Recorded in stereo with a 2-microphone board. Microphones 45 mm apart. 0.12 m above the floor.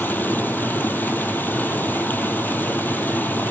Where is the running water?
45° left (ahead or behind), 1.1 m.